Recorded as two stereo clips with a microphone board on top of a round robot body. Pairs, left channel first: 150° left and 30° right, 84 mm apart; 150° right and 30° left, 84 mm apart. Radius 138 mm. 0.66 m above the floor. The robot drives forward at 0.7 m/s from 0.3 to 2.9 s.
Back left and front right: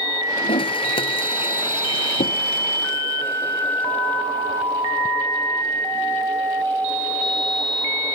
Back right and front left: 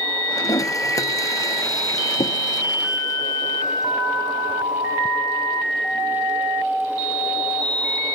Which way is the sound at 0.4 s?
160° left.